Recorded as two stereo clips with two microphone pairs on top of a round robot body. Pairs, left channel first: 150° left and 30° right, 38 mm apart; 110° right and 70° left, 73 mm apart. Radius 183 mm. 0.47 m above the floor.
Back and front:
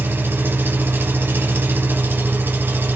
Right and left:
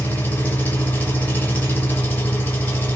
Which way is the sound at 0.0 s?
40° right.